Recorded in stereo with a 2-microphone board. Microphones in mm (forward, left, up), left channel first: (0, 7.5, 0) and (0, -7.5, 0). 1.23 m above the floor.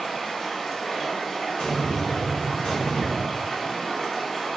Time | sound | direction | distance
0.0 | running water | 20° left (ahead or behind) | 0.8 m
1.6 | an explosion | 65° left (ahead or behind) | 1.0 m